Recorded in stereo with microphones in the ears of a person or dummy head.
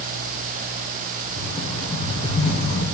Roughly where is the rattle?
Left.